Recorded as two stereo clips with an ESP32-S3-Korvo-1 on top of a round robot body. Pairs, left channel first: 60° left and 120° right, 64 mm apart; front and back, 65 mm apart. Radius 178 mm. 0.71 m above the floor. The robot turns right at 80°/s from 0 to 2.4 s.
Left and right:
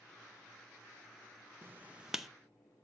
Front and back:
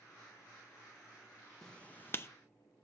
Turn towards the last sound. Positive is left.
turn(degrees=-20)